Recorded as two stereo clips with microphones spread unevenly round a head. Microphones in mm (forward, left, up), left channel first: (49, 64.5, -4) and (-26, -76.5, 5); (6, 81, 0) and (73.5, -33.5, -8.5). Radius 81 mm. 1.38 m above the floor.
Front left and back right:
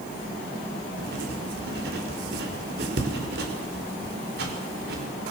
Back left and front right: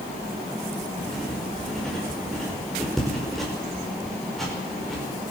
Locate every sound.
1.0 s writing: 150° right, 5.5 m